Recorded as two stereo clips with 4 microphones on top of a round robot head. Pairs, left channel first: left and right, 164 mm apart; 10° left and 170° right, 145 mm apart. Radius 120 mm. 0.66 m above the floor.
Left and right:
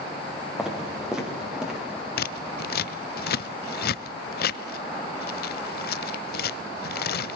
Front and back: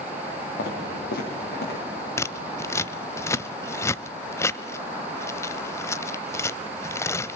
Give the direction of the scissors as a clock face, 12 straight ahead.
9 o'clock.